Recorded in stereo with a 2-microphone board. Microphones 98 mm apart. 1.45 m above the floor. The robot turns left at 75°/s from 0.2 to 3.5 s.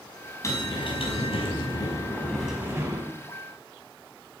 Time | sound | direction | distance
0.4 | a bell | 150° left | 5 m